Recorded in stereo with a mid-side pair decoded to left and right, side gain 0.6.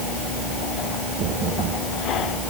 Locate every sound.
Only background noise.